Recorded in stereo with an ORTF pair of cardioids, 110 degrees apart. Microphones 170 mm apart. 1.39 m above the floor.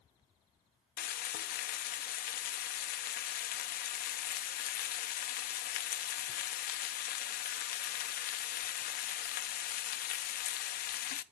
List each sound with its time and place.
1.0 s frying: 60° left, 0.6 m